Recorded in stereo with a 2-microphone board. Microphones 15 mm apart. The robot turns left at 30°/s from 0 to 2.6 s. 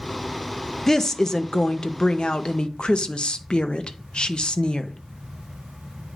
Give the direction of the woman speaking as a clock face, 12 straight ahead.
7 o'clock.